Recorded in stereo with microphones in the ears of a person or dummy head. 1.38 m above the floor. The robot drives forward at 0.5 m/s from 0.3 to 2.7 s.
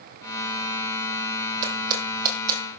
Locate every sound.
1.6 s footsteps: 50° right (ahead or behind), 3 m; by 2.6 s 55° right (ahead or behind), 2.5 m